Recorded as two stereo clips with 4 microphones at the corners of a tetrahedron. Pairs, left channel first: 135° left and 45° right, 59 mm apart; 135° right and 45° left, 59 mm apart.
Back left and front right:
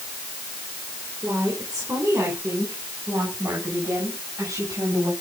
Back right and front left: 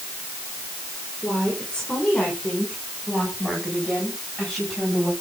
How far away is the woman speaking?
About 5 m.